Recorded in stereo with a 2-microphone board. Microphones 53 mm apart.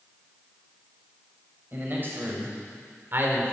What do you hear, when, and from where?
1.7 s a man speaking: 40° right (ahead or behind), 5 m; by 3.5 s 45° right (ahead or behind), 2.5 m